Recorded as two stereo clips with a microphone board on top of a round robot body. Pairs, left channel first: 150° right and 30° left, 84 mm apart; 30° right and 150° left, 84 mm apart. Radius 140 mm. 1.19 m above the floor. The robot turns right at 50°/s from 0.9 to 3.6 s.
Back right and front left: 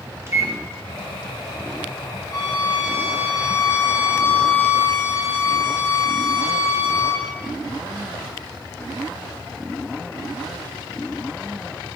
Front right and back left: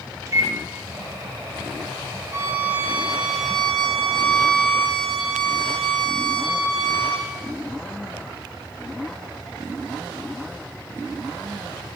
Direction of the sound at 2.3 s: 175° right.